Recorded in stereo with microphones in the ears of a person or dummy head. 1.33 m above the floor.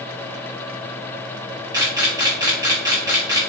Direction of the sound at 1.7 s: 15° right (ahead or behind).